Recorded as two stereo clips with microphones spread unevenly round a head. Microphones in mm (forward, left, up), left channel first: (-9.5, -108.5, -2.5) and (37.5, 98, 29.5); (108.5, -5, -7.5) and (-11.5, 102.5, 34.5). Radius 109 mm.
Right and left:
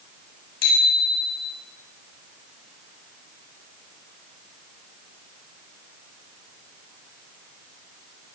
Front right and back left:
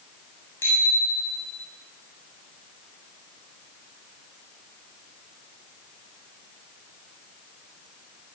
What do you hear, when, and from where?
0.6 s a bicycle bell: 125° right, 7.5 m